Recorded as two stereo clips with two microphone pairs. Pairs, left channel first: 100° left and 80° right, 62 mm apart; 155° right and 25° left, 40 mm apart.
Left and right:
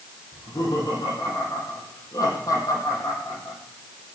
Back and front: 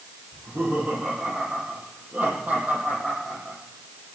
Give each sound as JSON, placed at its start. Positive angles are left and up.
{"t": 0.3, "sound": "laughter", "azimuth_deg": 80, "distance_m": 9.0}